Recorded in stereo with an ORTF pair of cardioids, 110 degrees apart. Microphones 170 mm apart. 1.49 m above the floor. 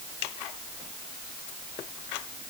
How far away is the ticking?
I don't hear ticking.